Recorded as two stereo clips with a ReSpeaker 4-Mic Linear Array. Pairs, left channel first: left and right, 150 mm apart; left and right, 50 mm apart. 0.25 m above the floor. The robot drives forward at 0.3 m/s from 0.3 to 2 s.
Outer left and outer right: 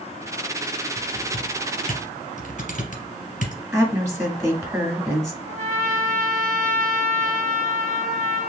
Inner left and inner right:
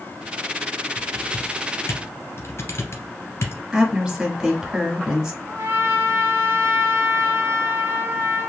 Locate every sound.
0.9 s typing on a keyboard: 65° left (ahead or behind), 1.5 m; by 3.6 s 55° left (ahead or behind), 1.6 m
3.7 s a woman speaking: 20° right (ahead or behind), 1.5 m
5.5 s a trumpet: 55° right (ahead or behind), 0.9 m